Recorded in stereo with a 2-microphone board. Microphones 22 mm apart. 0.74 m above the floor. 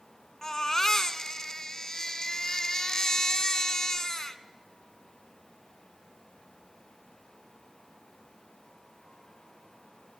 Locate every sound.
0.4 s a baby crying: 25° left (ahead or behind), 1.1 m